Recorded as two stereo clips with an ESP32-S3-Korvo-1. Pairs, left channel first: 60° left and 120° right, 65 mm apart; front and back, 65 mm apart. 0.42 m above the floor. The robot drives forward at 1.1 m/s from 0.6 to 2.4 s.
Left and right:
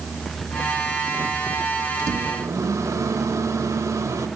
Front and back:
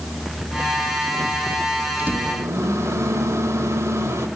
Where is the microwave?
120° right, 0.8 m; by 4.3 s 145° right, 1.0 m.